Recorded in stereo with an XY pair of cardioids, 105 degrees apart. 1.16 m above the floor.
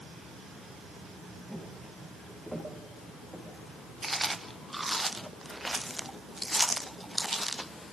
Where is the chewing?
10° right, 0.6 m.